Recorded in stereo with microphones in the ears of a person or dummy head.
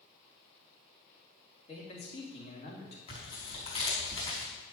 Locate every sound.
1.7 s a man speaking: 40° left (ahead or behind), 3.5 m
3.1 s tearing paper: 35° left (ahead or behind), 4.5 m